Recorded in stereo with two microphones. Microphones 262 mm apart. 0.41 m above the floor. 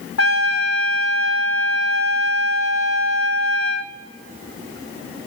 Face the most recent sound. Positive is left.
turn(degrees=70)  # may be behind; listen again after turning